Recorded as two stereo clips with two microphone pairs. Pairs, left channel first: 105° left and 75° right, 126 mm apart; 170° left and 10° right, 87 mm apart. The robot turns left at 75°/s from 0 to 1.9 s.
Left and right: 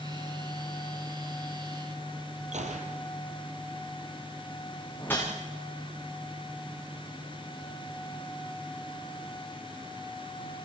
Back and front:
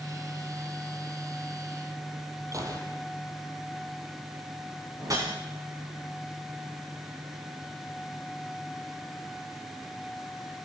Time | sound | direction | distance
2.5 | a gunshot | 60° right | 3.5 m
5.0 | a whoosh | 35° left | 8.5 m